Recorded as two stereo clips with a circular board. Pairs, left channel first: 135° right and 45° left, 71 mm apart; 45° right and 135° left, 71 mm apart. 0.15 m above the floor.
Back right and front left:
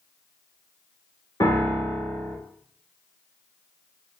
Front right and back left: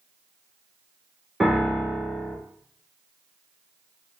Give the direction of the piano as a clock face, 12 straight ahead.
5 o'clock.